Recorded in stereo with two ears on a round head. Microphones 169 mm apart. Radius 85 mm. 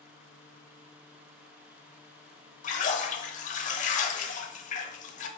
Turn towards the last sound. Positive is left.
turn(degrees=40)  # may be behind; listen again after turning